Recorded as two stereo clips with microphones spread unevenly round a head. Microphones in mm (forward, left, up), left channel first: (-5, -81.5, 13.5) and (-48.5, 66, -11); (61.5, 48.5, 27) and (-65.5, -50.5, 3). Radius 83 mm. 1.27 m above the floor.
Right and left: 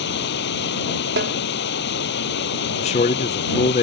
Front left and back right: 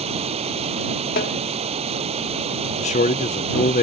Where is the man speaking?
15° right.